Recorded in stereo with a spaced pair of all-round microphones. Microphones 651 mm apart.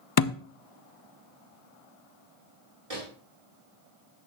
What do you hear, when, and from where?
0.2 s a thud: 40° left (ahead or behind), 0.5 m
2.9 s a microwave: 60° right (ahead or behind), 2.5 m